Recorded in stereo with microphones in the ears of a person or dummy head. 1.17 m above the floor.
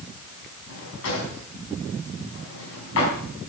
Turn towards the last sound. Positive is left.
turn(degrees=80)